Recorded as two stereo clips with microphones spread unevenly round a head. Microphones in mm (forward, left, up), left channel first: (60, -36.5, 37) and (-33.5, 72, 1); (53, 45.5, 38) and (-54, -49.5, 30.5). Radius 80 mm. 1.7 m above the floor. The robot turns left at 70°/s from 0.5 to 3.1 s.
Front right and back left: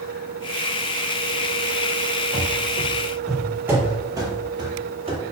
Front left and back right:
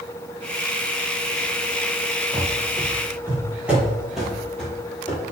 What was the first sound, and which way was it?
Running footsteps, 25° right.